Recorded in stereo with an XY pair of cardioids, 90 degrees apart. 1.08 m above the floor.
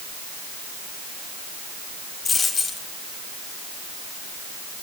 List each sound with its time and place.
2.2 s a dropped coin: 30° left, 8 m